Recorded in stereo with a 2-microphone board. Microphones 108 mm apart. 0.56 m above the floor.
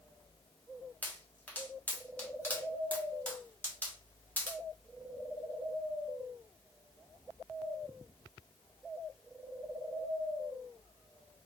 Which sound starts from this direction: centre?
A pop, at 1.0 s.